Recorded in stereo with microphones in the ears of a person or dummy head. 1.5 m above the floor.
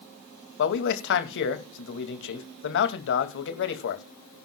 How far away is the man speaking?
About 2 m.